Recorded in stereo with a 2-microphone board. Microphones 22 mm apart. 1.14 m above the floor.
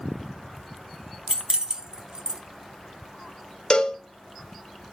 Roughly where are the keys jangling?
Right.